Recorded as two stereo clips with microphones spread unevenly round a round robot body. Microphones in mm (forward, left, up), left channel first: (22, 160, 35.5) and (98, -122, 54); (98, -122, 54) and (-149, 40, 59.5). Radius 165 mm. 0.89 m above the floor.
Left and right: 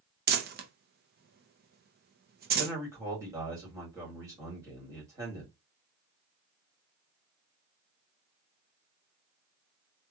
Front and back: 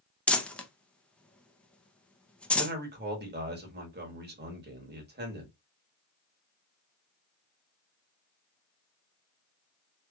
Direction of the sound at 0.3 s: 115° right.